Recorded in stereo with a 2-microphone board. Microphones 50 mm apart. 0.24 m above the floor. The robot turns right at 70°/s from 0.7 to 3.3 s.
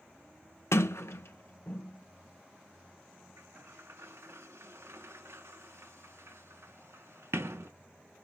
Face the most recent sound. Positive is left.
turn(degrees=-70)  # may be behind; listen again after turning